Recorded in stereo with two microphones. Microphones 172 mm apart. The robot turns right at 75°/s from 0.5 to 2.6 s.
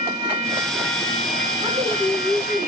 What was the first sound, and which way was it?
A woman speaking, 155° right.